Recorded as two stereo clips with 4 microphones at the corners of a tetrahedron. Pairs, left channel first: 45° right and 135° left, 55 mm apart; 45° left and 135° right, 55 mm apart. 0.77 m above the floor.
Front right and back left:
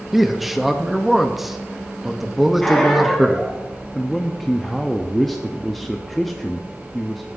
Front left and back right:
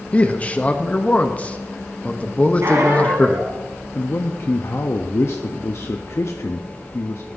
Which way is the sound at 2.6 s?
125° right.